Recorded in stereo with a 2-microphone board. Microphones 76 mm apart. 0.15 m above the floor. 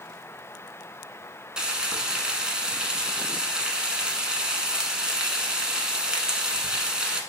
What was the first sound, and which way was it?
Frying, 10° right (ahead or behind).